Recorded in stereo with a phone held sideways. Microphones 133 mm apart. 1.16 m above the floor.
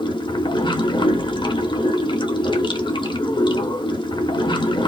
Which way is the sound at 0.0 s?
35° left (ahead or behind).